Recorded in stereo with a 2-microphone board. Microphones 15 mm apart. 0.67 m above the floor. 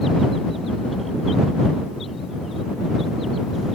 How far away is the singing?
No singing in this recording.